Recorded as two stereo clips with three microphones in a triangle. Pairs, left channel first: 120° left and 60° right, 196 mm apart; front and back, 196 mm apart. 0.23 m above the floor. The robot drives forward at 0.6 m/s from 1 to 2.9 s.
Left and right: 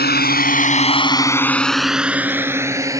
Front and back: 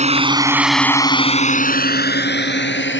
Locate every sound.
0.0 s a drone: 135° left; by 3.0 s 15° left